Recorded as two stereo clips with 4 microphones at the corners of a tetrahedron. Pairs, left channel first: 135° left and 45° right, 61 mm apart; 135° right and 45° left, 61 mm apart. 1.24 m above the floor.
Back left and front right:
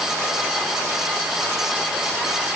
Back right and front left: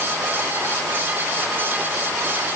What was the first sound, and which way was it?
Only background noise.